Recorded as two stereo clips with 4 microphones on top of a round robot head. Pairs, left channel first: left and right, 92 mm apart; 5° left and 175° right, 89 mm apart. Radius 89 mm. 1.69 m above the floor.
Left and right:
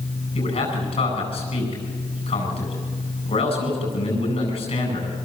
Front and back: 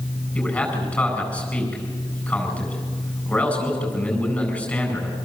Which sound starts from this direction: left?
A man speaking, at 0.3 s.